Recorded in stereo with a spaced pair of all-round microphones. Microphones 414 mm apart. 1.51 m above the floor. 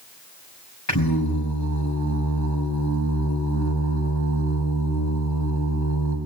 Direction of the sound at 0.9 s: 40° left (ahead or behind).